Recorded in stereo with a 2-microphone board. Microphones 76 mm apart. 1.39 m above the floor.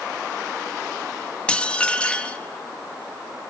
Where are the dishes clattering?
15° left (ahead or behind), 1.1 m.